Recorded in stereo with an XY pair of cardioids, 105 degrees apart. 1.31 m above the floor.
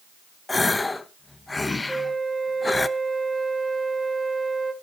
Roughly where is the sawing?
I don't hear sawing.